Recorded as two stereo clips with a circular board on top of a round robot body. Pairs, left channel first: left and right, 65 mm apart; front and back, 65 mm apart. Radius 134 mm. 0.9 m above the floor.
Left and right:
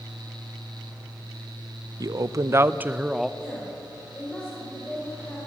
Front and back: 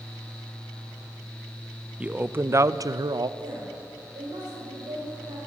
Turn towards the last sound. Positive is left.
turn(degrees=165)